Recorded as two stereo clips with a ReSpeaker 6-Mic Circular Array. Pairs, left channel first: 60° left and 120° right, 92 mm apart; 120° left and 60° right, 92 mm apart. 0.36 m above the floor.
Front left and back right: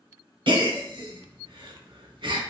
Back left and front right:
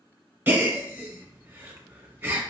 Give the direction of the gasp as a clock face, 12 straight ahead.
4 o'clock.